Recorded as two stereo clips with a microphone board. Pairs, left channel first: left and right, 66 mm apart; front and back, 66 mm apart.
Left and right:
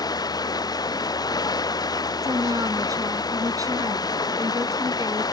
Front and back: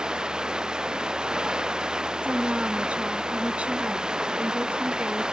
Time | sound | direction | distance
0.0 | running water | 100° left | ?
2.2 | a woman speaking | 110° right | ?